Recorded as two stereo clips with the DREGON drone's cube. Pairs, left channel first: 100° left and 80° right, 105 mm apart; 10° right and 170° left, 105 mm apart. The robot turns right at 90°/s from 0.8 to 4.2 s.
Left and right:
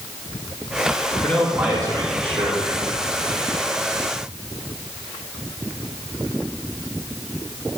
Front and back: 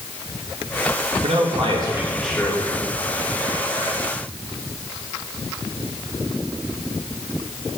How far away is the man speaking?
About 1.5 m.